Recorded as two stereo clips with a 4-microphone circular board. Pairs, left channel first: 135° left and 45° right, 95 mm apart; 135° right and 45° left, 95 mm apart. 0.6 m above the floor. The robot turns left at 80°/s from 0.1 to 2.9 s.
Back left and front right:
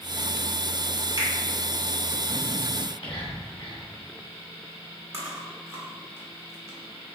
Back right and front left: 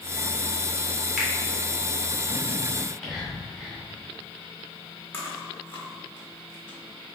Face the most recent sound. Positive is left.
turn(degrees=-80)